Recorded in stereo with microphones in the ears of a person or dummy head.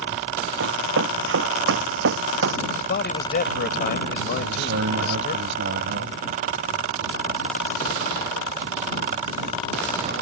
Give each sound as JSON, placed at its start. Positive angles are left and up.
{"t": 0.6, "sound": "running footsteps", "side_deg": -75}
{"t": 2.7, "sound": "a man speaking", "side_deg": 55}
{"t": 4.3, "sound": "a man speaking", "side_deg": -70}